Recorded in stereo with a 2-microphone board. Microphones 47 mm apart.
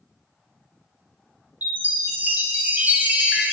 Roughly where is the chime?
Right.